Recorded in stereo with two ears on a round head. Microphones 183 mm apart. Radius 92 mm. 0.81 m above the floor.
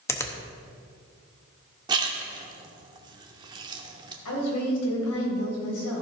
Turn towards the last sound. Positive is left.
turn(degrees=85)